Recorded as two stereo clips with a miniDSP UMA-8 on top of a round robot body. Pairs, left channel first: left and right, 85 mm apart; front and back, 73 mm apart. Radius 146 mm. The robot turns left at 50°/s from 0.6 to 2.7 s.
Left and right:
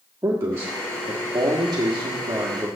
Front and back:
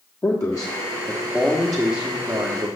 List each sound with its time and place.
0.2 s a man speaking: 35° right, 1.4 m; by 2.7 s 140° right, 1.4 m